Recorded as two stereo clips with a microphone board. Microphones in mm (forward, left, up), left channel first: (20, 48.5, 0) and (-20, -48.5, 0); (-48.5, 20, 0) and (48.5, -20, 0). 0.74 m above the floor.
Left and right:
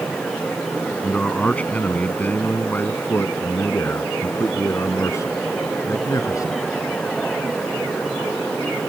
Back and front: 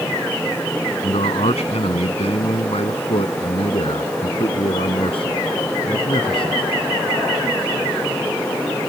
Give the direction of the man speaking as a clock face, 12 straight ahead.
7 o'clock.